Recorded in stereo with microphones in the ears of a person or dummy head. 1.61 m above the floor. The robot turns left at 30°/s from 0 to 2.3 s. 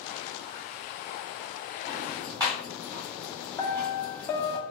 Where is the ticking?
10° right (ahead or behind), 2 m; by 4.6 s 20° right (ahead or behind), 2 m.